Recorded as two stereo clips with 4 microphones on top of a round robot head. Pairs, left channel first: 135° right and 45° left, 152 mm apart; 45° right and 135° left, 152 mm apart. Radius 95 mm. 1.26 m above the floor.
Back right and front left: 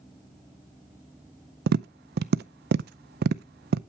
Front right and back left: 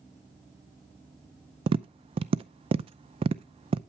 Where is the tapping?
75° left, 0.5 m.